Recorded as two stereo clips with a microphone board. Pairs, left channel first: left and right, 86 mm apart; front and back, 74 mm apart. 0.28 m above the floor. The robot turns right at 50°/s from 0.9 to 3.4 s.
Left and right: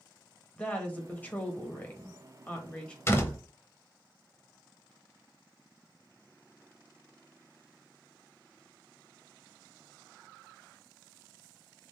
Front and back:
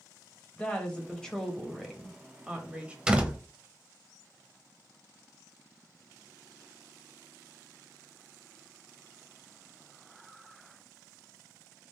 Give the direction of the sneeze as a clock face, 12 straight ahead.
I don't hear a sneeze.